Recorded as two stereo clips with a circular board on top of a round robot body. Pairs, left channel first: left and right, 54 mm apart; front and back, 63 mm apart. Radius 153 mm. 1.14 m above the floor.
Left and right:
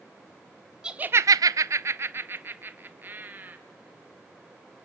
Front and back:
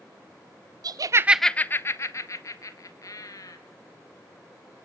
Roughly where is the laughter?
Behind.